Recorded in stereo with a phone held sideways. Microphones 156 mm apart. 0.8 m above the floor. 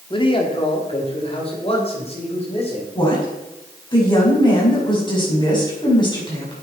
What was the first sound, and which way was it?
A man speaking, 30° left (ahead or behind).